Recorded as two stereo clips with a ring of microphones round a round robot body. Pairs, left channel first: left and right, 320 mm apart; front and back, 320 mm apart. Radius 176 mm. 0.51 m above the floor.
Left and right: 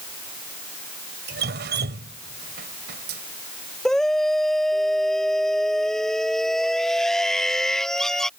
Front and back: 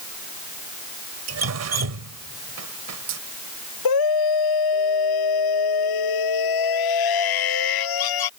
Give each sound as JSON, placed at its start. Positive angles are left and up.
{"t": 1.3, "sound": "dripping", "azimuth_deg": -150}
{"t": 3.9, "sound": "a scream", "azimuth_deg": 0}